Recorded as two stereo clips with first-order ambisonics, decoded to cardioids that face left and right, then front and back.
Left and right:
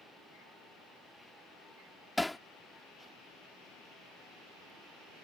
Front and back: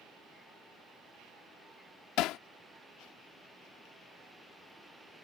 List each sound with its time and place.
2.2 s hammering: 5° left